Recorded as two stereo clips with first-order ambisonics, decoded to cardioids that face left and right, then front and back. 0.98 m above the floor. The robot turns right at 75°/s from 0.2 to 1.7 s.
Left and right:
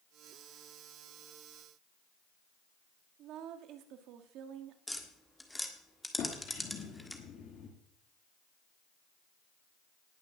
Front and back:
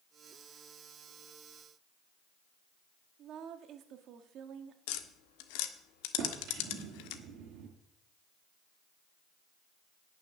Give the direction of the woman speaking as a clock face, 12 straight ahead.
4 o'clock.